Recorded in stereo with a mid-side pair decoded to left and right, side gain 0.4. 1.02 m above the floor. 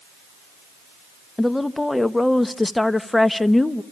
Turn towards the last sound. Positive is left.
turn(degrees=15)